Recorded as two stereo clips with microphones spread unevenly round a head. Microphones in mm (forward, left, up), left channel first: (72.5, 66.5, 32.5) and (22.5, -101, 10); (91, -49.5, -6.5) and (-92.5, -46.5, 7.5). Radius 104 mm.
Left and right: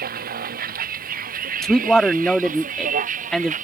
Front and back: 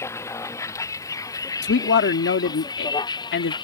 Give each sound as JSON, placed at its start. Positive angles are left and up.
{"t": 0.0, "sound": "a vehicle", "azimuth_deg": -75}
{"t": 1.6, "sound": "a man speaking", "azimuth_deg": -15}